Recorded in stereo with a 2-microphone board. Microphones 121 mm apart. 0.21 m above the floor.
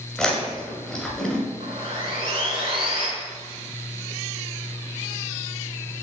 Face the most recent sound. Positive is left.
turn(degrees=-50)  # may be behind; listen again after turning